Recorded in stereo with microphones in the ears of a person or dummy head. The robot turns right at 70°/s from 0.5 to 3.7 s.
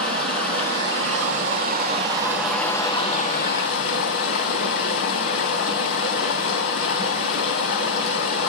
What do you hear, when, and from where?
0.0 s running water: 140° right, 2.5 m; by 8.5 s 85° left, 2.5 m